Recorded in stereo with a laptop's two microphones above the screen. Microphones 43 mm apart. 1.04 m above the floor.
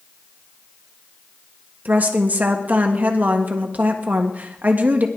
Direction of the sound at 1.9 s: 40° right (ahead or behind).